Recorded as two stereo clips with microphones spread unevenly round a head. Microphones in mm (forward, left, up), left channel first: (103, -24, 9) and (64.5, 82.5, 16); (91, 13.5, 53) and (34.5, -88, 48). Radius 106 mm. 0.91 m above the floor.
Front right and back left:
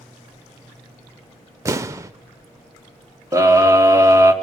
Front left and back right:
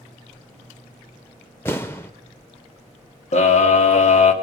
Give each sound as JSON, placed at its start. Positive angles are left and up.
{"t": 1.6, "sound": "an explosion", "azimuth_deg": 115, "distance_m": 0.6}
{"t": 3.3, "sound": "a scream", "azimuth_deg": 50, "distance_m": 3.0}